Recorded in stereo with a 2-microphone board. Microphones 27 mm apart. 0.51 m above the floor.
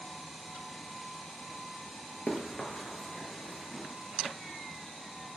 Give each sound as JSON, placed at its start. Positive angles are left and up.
{"t": 2.3, "sound": "running footsteps", "side_deg": 35, "distance_m": 0.6}